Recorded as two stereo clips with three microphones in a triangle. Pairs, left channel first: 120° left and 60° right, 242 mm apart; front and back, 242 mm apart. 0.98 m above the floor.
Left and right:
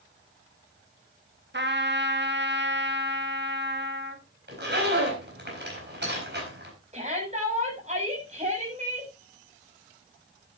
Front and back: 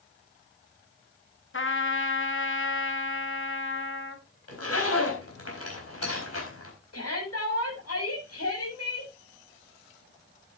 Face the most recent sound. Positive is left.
turn(degrees=0)